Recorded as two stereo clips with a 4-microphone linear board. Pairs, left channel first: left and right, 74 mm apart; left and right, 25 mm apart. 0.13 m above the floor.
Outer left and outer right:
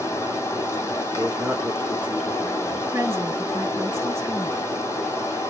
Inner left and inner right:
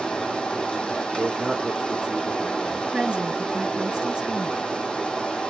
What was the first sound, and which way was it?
Running water, 40° left (ahead or behind).